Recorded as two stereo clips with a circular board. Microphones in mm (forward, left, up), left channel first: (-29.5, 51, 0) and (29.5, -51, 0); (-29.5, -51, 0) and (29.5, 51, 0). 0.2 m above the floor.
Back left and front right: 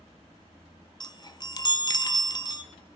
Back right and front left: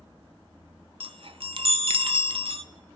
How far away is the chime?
About 0.7 m.